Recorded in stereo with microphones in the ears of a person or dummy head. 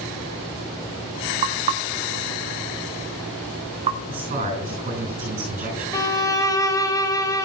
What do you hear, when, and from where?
1.4 s knocking: 25° right (ahead or behind), 1.1 m
4.1 s a man speaking: 35° right (ahead or behind), 7 m
5.9 s a violin: 25° left (ahead or behind), 1.0 m